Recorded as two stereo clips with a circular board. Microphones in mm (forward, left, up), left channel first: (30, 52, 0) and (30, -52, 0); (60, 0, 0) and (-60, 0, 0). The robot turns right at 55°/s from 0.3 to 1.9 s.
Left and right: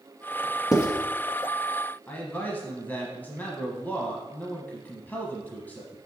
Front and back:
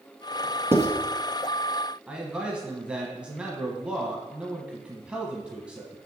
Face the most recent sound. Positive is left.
turn(degrees=120)